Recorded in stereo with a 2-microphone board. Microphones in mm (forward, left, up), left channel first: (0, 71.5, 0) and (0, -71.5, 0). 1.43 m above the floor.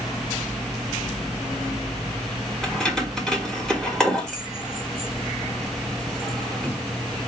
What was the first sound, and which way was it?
Keys jangling, 5° left (ahead or behind).